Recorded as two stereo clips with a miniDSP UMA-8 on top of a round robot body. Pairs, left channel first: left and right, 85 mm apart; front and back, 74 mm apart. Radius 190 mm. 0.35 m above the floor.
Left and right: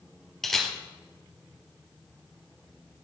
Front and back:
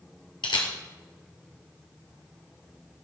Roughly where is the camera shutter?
Ahead.